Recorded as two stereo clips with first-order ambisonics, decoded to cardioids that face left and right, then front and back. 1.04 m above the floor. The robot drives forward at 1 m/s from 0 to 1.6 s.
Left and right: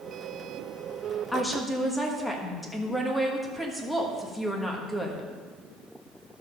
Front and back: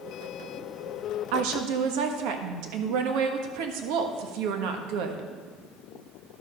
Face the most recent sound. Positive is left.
turn(degrees=175)